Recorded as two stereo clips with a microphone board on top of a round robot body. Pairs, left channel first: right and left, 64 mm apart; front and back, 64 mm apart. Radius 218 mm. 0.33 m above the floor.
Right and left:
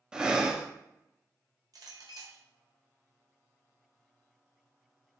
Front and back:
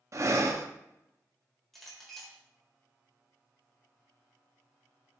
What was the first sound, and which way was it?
Breathing, 165° left.